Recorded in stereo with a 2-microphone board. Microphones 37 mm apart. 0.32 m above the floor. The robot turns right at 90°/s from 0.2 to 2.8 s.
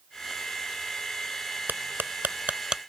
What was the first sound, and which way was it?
Cutlery clinking, 65° right (ahead or behind).